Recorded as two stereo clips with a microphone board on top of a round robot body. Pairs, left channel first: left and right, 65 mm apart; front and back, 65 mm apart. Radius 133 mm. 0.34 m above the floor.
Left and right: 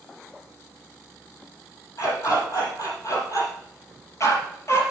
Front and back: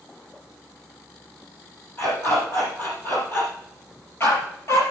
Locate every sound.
2.0 s a dog barking: 60° left, 6 m; by 4.8 s 50° left, 3.5 m